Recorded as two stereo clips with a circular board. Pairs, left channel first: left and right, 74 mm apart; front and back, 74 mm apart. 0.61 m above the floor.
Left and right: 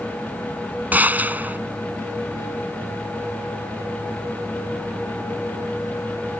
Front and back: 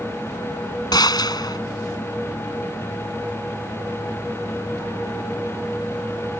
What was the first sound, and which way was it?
A gunshot, 20° right.